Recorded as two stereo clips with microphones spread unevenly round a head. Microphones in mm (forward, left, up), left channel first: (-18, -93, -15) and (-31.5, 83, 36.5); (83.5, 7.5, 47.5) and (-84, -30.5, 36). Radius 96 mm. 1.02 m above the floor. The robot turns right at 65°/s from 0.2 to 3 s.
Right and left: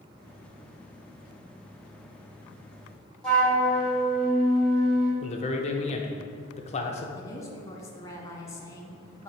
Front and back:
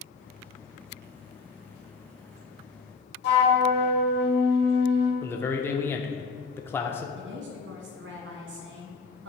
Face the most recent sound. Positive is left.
turn(degrees=-160)